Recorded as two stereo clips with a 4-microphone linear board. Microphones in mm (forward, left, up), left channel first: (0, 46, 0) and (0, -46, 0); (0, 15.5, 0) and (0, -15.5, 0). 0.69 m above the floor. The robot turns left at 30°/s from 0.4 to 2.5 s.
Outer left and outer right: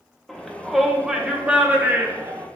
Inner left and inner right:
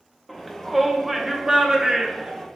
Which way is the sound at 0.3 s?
5° left.